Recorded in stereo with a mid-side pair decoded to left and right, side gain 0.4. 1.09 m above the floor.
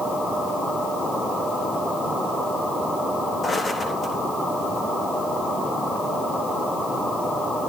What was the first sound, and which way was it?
Footsteps, 40° left.